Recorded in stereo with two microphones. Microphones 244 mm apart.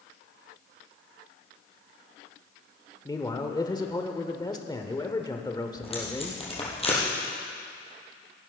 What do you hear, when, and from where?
3.0 s a man speaking: 15° left (ahead or behind), 0.9 m
5.8 s tape being pulled: 25° left (ahead or behind), 3.5 m